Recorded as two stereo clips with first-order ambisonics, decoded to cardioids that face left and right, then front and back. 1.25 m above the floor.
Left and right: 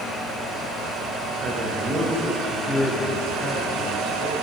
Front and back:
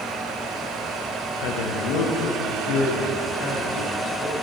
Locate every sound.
1.4 s a man speaking: 30° right, 1.0 m; by 4.3 s 10° left, 3.5 m